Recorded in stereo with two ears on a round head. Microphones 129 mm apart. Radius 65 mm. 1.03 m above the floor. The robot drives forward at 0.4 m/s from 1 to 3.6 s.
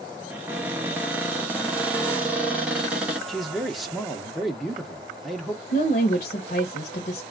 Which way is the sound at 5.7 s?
55° left (ahead or behind).